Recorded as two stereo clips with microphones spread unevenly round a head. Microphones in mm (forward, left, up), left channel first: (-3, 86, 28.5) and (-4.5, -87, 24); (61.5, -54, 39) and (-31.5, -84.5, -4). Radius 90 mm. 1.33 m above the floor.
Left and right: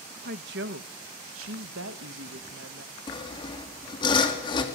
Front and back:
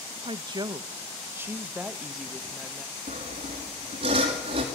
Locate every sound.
0.2 s a woman speaking: 125° right, 1.3 m; by 2.9 s 60° right, 1.7 m
3.1 s sawing: 155° left, 3 m